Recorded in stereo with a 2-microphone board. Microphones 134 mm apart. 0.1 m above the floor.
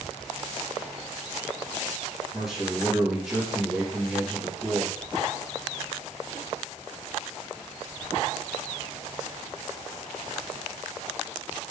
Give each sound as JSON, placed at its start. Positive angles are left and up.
{"t": 2.3, "sound": "a man speaking", "side_deg": -5, "distance_m": 2.0}